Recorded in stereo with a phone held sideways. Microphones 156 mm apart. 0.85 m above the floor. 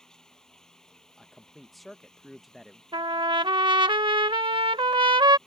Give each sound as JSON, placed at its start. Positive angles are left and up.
{"t": 0.0, "sound": "running water", "side_deg": 5}
{"t": 1.2, "sound": "a man speaking", "side_deg": 0}
{"t": 2.9, "sound": "a trumpet", "side_deg": -30}